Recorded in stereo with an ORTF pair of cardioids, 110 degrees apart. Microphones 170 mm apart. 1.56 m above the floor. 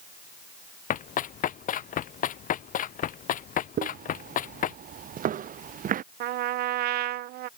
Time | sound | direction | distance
0.9 | running footsteps | 55° left | ?
3.8 | footsteps | 55° right | ?
6.2 | a trumpet | 70° right | ?